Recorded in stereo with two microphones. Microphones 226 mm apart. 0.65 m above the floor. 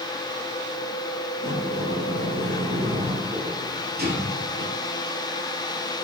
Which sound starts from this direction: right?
A sliding door, at 1.4 s.